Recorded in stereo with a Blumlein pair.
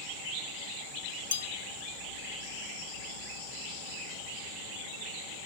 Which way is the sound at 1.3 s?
70° left.